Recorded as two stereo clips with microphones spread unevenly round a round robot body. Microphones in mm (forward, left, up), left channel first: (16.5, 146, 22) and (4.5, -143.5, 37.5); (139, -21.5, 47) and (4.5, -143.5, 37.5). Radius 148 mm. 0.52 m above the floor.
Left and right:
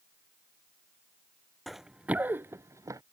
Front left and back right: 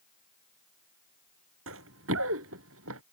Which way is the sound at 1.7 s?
Straight behind.